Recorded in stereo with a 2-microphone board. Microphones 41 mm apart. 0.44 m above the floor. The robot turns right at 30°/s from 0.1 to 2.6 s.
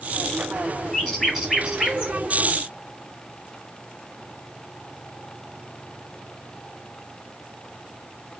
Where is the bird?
5° left (ahead or behind), 1.2 m; by 2.1 s 25° right (ahead or behind), 1.2 m.